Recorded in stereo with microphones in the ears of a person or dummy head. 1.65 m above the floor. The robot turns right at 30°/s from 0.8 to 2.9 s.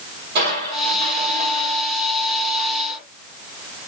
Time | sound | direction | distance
0.3 | crushing | 70° right | 1.6 m